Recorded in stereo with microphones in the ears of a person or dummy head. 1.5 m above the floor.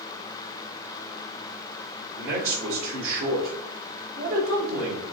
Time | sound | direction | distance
2.2 | a man speaking | 75° right (ahead or behind) | 2.5 m